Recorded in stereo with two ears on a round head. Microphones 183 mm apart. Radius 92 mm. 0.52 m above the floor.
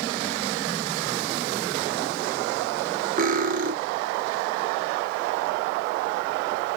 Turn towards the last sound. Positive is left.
turn(degrees=-40)  # may be behind; listen again after turning